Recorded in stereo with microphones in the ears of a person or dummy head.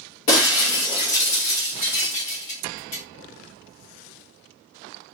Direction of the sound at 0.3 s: 35° left (ahead or behind).